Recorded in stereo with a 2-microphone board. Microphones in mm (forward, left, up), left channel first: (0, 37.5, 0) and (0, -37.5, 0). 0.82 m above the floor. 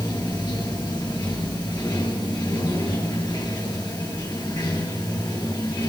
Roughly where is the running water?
Left.